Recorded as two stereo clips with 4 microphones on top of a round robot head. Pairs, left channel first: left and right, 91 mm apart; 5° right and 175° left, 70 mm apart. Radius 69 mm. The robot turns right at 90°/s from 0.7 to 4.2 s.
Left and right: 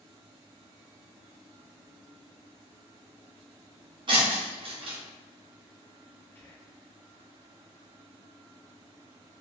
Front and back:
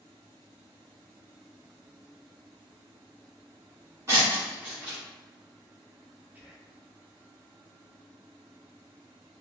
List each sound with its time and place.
4.1 s breaking glass: 120° right, 1.7 m; by 5.0 s 110° right, 1.7 m
6.3 s whispering: 130° left, 0.9 m